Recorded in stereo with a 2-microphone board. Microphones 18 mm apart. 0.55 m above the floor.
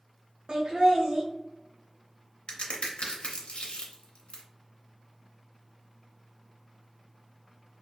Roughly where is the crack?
Left.